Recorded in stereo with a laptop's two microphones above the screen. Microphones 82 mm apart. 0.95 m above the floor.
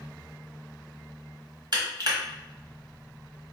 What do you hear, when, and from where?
1.7 s crushing: 60° right (ahead or behind), 1.2 m